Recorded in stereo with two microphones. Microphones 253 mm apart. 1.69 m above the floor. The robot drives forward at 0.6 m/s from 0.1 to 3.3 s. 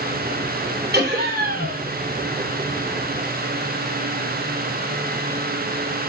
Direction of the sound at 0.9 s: 45° right (ahead or behind).